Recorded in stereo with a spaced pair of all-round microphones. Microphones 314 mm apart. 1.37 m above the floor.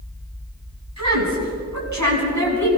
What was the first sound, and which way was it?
A woman speaking, 55° right (ahead or behind).